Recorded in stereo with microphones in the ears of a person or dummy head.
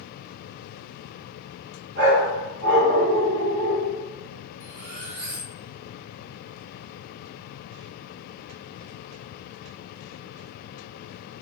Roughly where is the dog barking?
Right.